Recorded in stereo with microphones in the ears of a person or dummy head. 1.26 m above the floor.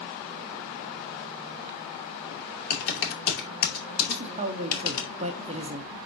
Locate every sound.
2.7 s typing on a keyboard: 55° left (ahead or behind), 2.5 m
4.1 s a man speaking: 35° right (ahead or behind), 0.9 m